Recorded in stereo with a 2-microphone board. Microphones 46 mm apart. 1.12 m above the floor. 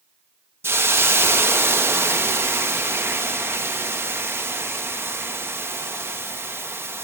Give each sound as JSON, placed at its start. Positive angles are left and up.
{"t": 0.6, "sound": "a hiss", "side_deg": -65, "distance_m": 1.4}